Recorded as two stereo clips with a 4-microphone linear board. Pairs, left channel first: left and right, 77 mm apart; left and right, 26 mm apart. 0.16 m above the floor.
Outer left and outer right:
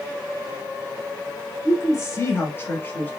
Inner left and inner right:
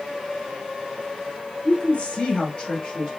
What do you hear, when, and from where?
1.6 s a woman speaking: 45° left (ahead or behind), 1.9 m; by 3.1 s 20° left (ahead or behind), 3 m